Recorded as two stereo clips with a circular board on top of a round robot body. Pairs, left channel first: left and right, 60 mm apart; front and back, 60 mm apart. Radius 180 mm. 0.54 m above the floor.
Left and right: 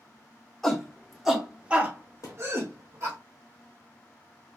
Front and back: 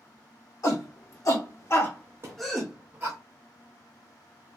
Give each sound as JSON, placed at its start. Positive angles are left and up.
{"t": 0.6, "sound": "a shout", "azimuth_deg": 5, "distance_m": 2.0}
{"t": 2.2, "sound": "a thud", "azimuth_deg": 130, "distance_m": 0.6}